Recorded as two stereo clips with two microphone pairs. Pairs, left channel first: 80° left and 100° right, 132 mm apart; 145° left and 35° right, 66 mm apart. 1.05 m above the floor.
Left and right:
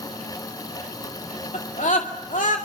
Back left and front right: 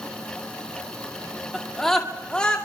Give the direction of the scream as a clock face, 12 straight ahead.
10 o'clock.